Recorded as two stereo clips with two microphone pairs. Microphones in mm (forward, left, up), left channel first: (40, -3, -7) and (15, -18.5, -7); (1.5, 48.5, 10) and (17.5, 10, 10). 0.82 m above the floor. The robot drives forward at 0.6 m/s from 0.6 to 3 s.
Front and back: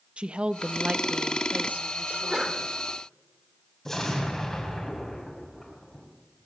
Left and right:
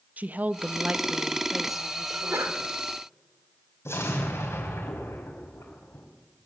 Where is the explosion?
105° left, 3.5 m.